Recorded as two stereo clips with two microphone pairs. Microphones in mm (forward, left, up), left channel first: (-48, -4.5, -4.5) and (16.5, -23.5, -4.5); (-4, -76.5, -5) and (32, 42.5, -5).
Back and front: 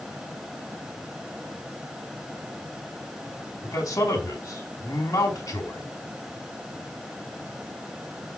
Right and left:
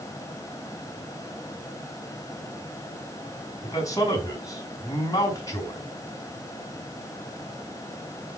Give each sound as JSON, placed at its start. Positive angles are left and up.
{"t": 3.6, "sound": "a man speaking", "azimuth_deg": -170, "distance_m": 4.0}